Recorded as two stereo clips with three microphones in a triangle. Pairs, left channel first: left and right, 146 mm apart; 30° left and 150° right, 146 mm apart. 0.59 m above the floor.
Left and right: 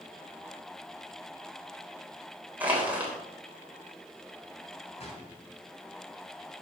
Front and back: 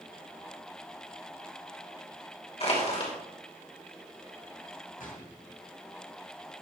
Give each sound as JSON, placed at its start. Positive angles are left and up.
{"t": 2.6, "sound": "crushing", "azimuth_deg": -10, "distance_m": 3.0}
{"t": 5.0, "sound": "a gunshot", "azimuth_deg": 50, "distance_m": 2.0}